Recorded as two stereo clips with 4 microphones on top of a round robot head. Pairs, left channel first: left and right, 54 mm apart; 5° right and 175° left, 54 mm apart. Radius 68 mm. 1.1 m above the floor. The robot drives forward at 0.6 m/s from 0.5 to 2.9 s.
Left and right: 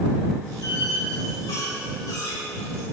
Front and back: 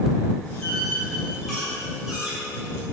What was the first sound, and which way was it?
A squeak, 70° left.